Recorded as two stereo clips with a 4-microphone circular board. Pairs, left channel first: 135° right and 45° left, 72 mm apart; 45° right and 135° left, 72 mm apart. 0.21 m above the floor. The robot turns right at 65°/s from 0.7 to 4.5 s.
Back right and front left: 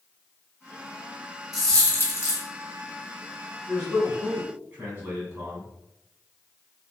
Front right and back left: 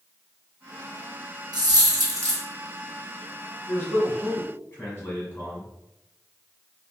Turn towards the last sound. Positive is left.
turn(degrees=-5)